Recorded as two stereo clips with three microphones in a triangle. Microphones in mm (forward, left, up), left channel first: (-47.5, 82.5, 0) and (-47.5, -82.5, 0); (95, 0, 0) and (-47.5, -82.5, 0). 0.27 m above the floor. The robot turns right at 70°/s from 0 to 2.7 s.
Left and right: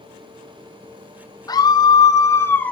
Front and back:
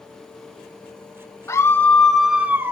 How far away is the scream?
About 1.0 m.